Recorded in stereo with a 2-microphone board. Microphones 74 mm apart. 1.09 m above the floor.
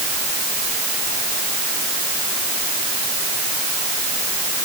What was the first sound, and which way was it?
Only background noise.